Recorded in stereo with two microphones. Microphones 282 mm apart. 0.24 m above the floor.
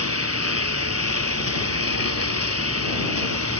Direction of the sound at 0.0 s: 60° right (ahead or behind).